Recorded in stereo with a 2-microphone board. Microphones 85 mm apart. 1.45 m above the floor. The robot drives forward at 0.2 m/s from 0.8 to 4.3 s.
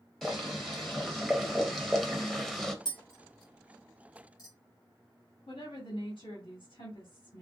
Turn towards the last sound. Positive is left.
turn(degrees=70)  # may be behind; listen again after turning